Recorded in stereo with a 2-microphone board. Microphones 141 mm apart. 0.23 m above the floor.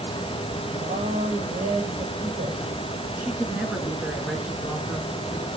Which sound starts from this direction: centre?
A woman speaking, at 3.2 s.